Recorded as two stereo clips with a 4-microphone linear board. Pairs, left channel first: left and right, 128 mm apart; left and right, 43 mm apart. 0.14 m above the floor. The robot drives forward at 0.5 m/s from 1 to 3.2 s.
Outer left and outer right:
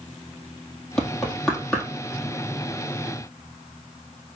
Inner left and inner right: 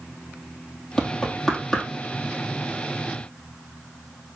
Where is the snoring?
No snoring in this recording.